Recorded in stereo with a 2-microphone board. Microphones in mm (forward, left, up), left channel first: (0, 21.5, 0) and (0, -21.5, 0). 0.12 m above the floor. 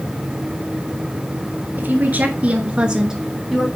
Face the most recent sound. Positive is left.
turn(degrees=0)  # may be behind; listen again after turning